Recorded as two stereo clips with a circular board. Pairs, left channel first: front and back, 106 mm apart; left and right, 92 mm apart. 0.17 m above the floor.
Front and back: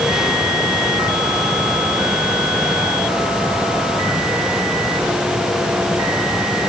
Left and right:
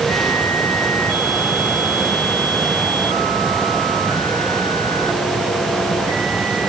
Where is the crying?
No crying in this recording.